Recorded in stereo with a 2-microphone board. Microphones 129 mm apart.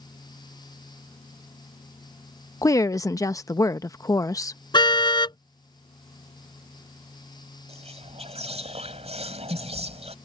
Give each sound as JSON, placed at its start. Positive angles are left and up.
{"t": 2.6, "sound": "a woman speaking", "side_deg": 25}
{"t": 4.7, "sound": "a car horn", "side_deg": 35}
{"t": 7.7, "sound": "whispering", "side_deg": -55}